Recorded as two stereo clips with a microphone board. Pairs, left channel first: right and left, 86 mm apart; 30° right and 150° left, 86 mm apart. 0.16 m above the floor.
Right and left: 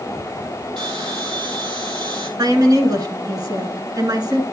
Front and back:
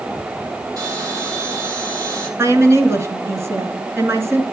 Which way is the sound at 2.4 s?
105° left.